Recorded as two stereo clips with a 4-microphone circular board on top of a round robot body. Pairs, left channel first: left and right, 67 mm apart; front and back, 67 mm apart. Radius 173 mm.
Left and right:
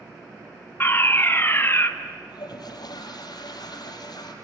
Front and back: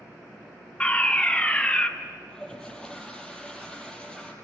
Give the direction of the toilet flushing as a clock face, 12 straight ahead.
9 o'clock.